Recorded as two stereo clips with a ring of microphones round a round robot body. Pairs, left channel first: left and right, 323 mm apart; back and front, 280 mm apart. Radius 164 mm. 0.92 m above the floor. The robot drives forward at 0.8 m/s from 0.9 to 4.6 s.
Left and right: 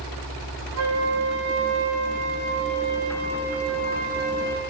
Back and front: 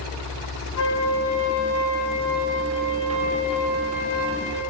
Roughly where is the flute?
Behind right.